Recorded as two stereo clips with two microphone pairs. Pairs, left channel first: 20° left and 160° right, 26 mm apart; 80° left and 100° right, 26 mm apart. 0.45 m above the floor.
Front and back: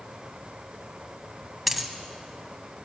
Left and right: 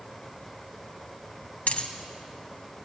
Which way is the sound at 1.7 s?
110° left.